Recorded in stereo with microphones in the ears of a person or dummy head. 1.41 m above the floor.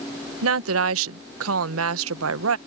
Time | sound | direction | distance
0.4 | a woman speaking | 80° right | ?